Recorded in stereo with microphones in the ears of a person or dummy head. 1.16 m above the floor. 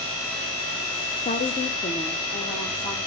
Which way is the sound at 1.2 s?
35° left (ahead or behind).